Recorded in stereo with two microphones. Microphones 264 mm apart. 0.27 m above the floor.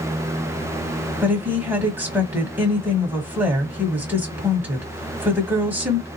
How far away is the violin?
No violin in this recording.